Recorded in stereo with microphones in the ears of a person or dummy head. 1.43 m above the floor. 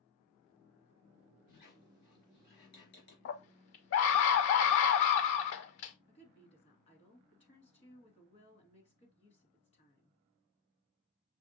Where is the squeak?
55° left (ahead or behind), 3.5 m.